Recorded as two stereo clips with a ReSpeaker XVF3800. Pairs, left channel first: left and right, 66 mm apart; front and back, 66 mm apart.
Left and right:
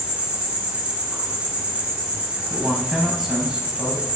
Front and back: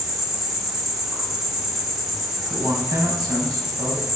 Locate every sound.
0.0 s an insect: 115° right, 0.8 m
2.5 s a man speaking: 170° right, 0.7 m